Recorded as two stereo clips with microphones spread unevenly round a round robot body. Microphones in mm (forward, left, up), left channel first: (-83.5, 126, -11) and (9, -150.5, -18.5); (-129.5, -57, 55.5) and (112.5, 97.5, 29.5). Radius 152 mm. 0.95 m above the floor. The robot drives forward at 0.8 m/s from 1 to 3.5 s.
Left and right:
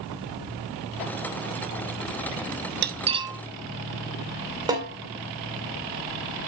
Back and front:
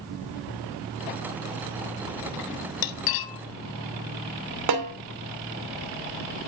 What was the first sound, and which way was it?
Cutlery clinking, 125° right.